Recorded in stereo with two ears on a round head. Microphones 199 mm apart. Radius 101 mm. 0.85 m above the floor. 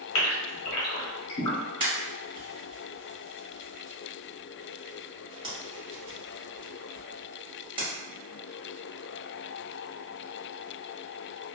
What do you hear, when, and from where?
0.1 s a gasp: 70° left (ahead or behind), 0.9 m
1.8 s a pop: 25° right (ahead or behind), 1.4 m